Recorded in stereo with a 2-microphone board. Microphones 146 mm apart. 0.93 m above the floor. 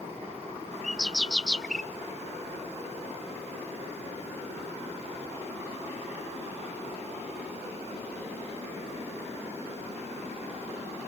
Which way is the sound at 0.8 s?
Centre (ahead or behind).